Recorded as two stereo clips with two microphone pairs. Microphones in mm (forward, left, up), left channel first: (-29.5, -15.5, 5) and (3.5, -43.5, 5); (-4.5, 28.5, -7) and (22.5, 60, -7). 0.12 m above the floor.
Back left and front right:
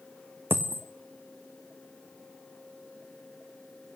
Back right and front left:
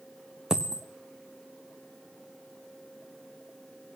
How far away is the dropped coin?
About 1.5 m.